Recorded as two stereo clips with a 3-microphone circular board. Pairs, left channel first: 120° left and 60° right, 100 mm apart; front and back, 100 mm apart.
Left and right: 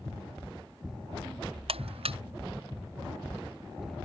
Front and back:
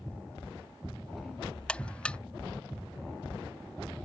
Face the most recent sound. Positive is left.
turn(degrees=-80)